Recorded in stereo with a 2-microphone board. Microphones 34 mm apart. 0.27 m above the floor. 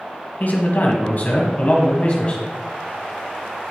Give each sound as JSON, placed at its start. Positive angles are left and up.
{"t": 0.4, "sound": "a man speaking", "side_deg": 55, "distance_m": 1.6}